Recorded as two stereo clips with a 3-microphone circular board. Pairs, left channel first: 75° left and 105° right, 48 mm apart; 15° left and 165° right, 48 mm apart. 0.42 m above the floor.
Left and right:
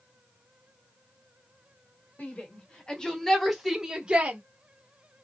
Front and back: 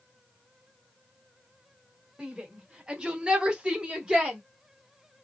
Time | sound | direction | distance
2.2 | a shout | 125° left | 1.7 m